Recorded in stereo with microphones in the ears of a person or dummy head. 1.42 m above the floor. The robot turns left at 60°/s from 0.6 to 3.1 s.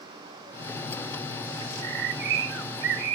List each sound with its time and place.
1.6 s a bird: 30° right, 0.8 m; by 3.2 s 120° right, 0.8 m